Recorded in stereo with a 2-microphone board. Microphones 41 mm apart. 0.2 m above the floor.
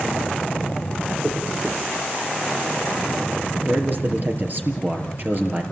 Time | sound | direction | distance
1.2 | a dropped coin | 45° right (ahead or behind) | 7.5 m
3.5 | a man speaking | 50° right (ahead or behind) | 4 m